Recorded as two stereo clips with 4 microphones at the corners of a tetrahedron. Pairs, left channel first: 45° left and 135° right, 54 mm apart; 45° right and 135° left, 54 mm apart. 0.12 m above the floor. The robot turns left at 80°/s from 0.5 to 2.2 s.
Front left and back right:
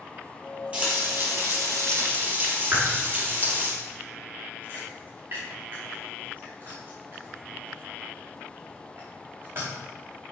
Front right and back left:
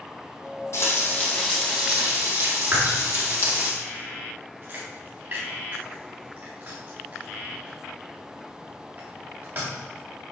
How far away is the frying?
About 4 m.